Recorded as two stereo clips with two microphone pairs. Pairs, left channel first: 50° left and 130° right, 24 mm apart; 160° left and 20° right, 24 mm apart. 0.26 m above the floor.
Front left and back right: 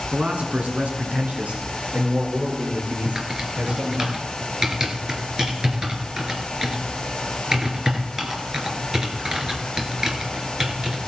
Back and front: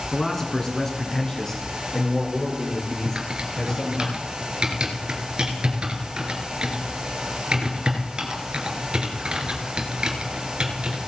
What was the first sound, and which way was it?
A man speaking, 130° right.